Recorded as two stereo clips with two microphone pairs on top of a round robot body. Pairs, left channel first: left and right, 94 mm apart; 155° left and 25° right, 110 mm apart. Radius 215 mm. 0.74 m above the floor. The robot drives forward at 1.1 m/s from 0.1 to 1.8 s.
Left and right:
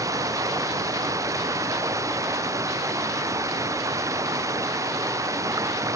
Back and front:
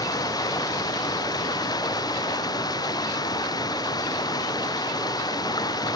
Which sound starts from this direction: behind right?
Running water, at 0.0 s.